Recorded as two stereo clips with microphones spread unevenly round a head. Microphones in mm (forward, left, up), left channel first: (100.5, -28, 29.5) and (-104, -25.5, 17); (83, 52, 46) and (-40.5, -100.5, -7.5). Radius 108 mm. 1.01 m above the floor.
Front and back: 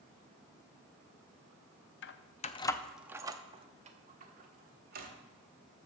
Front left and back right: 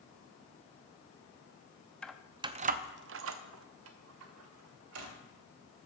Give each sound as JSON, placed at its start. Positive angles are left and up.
{"t": 2.0, "sound": "keys jangling", "azimuth_deg": -30, "distance_m": 0.7}